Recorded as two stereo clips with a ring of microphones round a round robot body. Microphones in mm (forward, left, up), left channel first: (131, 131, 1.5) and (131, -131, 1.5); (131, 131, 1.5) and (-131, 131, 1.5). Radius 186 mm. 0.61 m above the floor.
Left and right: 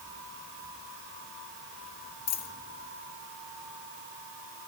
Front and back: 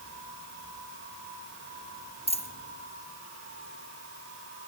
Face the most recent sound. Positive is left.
turn(degrees=70)